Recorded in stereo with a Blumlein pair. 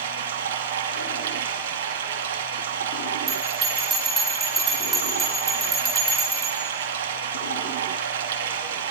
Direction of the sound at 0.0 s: 60° right.